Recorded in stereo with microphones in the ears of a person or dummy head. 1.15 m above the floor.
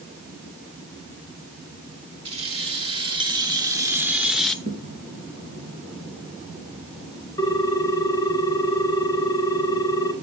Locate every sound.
2.2 s keys jangling: 35° right (ahead or behind), 2 m; by 4.5 s 5° left (ahead or behind), 0.9 m
4.7 s a thud: 45° right (ahead or behind), 4 m
7.4 s a ringtone: 20° left (ahead or behind), 2 m